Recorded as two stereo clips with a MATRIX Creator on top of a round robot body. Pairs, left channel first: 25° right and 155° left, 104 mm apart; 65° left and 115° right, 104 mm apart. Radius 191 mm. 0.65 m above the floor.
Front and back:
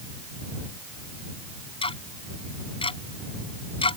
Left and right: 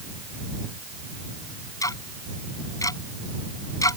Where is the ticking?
10° left.